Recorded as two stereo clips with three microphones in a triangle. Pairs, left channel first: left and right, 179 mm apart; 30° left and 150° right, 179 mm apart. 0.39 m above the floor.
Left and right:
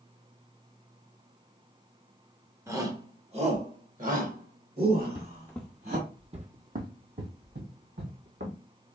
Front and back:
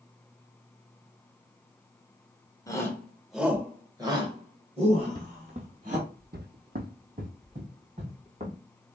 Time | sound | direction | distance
2.7 | a shout | 30° right | 1.0 m
5.0 | footsteps | 145° left | 0.8 m